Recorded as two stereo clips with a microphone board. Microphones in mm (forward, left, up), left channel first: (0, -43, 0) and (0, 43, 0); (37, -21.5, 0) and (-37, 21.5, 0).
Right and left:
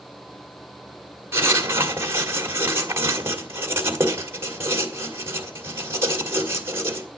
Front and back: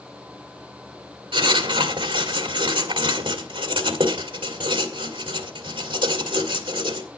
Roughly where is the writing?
Behind left.